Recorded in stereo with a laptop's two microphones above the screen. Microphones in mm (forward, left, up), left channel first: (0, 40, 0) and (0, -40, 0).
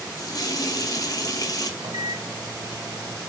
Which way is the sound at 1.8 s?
55° right (ahead or behind).